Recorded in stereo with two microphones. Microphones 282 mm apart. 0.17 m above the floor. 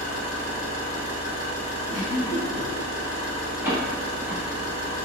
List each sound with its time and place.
0.0 s an engine running: 60° right (ahead or behind), 0.8 m
1.9 s a giggle: 45° right (ahead or behind), 1.7 m
3.6 s a door slam: 10° right (ahead or behind), 0.7 m